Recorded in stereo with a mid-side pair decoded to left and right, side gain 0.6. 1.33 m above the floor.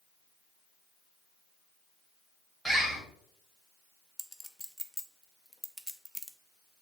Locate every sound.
2.6 s a bird: 10° right, 1.7 m
4.2 s a clink: straight ahead, 0.6 m